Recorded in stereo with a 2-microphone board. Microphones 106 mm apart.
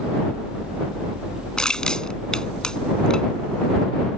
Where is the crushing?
10° left (ahead or behind).